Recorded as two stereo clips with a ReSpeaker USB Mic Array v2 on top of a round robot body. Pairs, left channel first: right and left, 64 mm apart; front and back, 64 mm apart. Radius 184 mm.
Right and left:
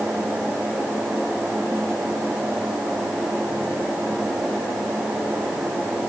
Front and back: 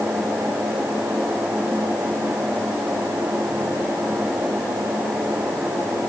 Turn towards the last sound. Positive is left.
No sound to turn to.